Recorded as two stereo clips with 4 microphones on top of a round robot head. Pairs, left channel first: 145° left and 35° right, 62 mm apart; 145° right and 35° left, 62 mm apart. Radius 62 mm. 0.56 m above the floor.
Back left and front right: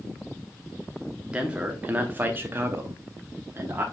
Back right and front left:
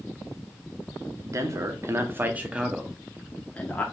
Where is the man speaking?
35° left, 1.0 m; by 3.8 s 85° right, 0.9 m.